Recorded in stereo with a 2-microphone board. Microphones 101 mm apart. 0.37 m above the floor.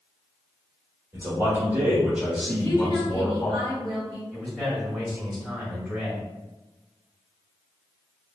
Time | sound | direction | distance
1.1 | a man speaking | 35° right (ahead or behind) | 1.2 m
2.5 | a woman speaking | 40° right (ahead or behind) | 1.8 m
4.3 | a man speaking | 5° left (ahead or behind) | 1.7 m